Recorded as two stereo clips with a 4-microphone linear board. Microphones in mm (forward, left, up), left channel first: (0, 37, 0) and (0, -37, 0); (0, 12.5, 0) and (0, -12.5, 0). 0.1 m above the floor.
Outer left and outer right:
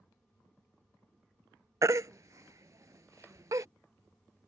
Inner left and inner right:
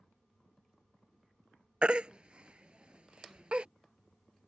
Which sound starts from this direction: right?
A baby crying, at 1.8 s.